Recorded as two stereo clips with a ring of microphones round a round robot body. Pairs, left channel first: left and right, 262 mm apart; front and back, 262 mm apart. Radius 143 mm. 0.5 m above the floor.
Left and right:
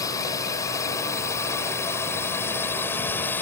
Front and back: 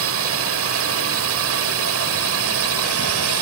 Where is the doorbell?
I don't hear a doorbell.